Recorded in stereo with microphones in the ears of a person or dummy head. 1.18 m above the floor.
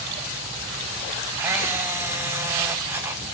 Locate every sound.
1.4 s a camera shutter: 15° right (ahead or behind), 0.9 m